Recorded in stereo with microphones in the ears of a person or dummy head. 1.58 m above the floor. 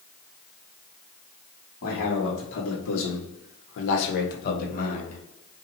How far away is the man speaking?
About 1.5 m.